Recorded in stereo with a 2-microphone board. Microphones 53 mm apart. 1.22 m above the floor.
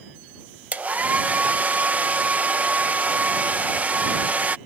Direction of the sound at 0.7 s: 30° right (ahead or behind).